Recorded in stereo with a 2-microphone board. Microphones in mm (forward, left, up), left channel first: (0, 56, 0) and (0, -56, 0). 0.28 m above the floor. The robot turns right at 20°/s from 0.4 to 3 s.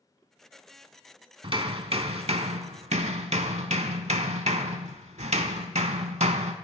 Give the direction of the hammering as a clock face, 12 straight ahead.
4 o'clock.